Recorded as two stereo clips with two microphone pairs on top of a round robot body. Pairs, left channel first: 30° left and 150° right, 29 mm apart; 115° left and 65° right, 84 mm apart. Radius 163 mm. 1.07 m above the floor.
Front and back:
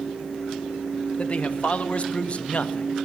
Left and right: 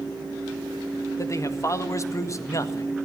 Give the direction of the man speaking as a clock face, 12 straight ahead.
10 o'clock.